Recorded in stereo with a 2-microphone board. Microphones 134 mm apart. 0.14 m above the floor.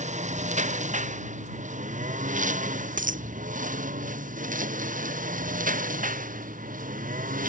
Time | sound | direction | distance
0.0 | a lawn mower | 60° right (ahead or behind) | ?
3.0 | a dropped coin | 80° right | ?